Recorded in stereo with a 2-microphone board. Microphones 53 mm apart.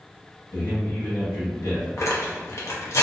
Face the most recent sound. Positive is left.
turn(degrees=65)  # may be behind; listen again after turning